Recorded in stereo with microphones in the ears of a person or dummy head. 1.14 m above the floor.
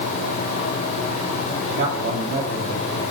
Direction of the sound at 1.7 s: 60° right (ahead or behind).